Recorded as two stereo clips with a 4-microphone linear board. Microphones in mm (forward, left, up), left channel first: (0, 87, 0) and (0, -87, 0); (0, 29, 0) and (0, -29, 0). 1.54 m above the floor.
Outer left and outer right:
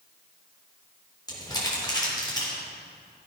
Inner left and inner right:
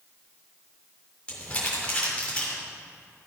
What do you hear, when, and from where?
1.3 s crumpling: 25° left (ahead or behind), 3.5 m